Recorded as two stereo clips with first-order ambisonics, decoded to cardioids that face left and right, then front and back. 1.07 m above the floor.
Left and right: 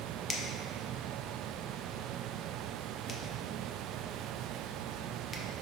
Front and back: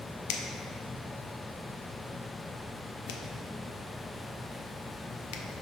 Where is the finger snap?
15° left, 0.8 m.